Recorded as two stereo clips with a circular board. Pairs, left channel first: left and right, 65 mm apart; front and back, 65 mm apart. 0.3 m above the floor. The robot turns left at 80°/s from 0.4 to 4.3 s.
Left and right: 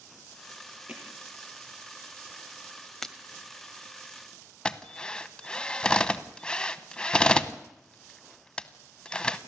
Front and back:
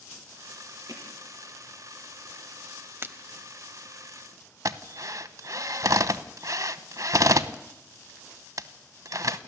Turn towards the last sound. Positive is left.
turn(degrees=165)